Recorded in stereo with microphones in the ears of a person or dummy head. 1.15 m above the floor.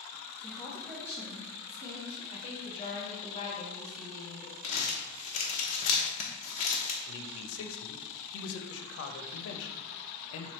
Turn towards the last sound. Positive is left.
turn(degrees=85)